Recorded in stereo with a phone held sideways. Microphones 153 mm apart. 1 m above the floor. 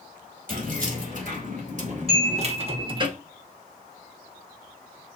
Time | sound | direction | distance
0.5 | keys jangling | 60° right (ahead or behind) | 2 m
2.1 | a chime | 45° right (ahead or behind) | 3.5 m